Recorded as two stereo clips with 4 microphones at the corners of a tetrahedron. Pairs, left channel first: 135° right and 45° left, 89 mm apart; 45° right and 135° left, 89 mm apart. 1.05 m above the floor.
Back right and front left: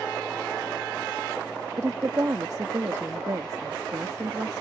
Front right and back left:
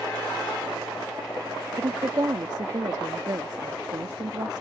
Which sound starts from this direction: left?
A woman speaking, at 1.8 s.